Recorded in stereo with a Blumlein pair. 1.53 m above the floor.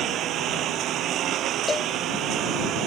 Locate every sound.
0.0 s a lawn mower: 30° right
1.7 s a cowbell: 15° left